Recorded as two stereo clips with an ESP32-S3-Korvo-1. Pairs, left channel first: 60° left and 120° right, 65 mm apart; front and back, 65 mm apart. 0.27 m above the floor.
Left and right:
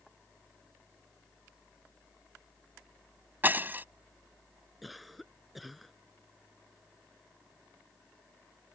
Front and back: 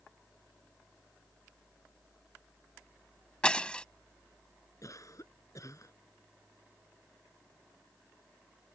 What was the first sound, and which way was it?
Breaking glass, 70° right.